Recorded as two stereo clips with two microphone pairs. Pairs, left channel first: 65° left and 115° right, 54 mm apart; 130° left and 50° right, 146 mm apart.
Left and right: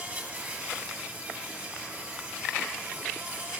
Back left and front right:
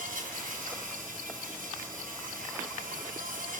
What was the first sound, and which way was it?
An insect, 60° right.